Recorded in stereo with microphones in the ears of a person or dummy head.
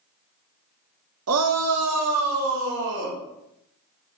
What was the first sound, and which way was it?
A shout, 70° right (ahead or behind).